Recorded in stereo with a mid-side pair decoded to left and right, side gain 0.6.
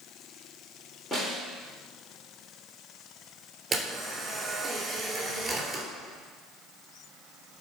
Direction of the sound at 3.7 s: 25° right.